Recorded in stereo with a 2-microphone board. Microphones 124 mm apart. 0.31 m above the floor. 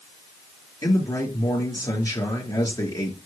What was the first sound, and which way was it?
A man speaking, 30° left (ahead or behind).